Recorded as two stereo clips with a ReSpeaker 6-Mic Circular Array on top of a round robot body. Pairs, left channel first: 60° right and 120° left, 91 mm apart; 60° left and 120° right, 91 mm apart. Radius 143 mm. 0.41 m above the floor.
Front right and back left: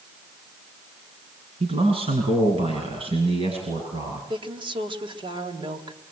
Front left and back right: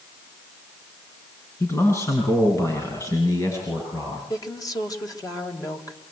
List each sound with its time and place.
1.6 s a man speaking: 120° left, 6 m; by 4.2 s 115° left, 8.5 m
4.3 s a woman speaking: 105° left, 3.5 m